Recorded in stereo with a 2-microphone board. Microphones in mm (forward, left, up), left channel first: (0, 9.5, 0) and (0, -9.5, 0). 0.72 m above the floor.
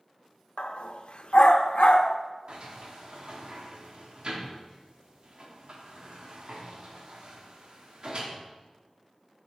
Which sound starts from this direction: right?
A sliding door, at 2.5 s.